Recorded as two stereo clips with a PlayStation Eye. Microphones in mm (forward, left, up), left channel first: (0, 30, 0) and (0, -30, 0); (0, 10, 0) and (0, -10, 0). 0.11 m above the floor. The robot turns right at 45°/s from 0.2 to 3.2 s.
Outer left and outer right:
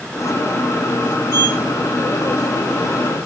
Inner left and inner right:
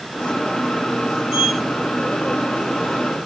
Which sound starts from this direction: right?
A sliding door, at 1.3 s.